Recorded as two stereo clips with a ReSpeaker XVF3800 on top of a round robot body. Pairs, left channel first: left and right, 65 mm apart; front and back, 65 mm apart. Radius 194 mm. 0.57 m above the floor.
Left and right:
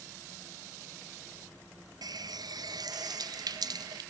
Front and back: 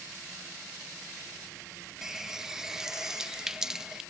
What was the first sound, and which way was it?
A running tap, 95° right.